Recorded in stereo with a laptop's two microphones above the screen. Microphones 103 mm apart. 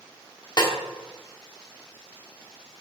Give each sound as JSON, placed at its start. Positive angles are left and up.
{"t": 0.6, "sound": "a snare drum", "side_deg": 45, "distance_m": 1.4}